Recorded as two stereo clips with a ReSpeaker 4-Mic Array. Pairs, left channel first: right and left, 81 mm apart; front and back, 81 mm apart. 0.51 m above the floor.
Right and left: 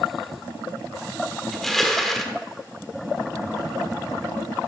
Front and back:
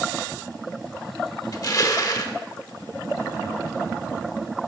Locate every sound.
1.5 s crushing: 5° right, 1.1 m